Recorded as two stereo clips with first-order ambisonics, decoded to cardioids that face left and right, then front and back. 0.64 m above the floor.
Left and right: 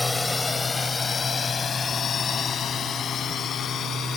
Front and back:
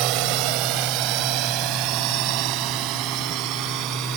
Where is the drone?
170° left; by 4.2 s 150° left.